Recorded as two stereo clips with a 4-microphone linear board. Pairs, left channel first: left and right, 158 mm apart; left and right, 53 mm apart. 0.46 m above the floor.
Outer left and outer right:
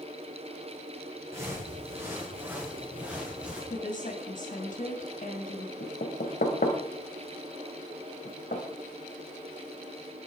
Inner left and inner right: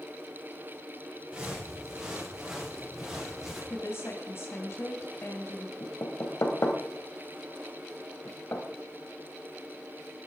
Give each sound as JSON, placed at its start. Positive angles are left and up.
{"t": 1.3, "sound": "footsteps", "side_deg": -20, "distance_m": 7.5}
{"t": 3.7, "sound": "a woman speaking", "side_deg": 55, "distance_m": 2.5}
{"t": 5.8, "sound": "knocking", "side_deg": 70, "distance_m": 2.0}